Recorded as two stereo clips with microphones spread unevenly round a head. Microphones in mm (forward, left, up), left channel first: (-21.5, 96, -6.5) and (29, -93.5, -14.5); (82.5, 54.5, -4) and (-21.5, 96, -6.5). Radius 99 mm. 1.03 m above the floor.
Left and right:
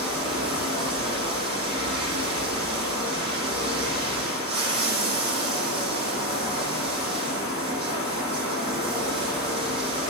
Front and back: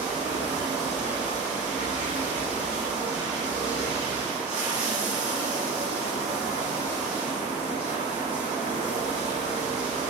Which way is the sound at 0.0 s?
140° right.